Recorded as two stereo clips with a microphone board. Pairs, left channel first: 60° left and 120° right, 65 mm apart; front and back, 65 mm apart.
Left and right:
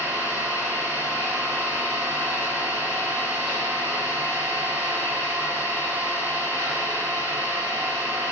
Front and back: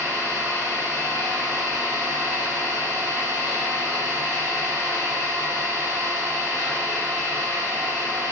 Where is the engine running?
175° left, 1.5 m.